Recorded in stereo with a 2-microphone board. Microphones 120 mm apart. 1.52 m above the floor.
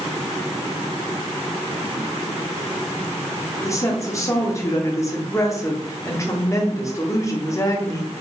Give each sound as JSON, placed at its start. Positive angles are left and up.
{"t": 3.6, "sound": "a woman speaking", "side_deg": 25, "distance_m": 0.8}